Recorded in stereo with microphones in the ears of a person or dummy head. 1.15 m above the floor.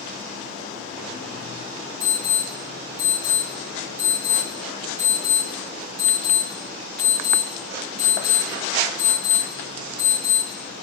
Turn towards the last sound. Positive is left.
turn(degrees=-35)  # may be behind; listen again after turning